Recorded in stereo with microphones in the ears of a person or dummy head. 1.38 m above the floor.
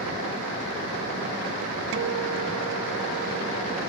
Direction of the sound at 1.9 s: 55° right (ahead or behind).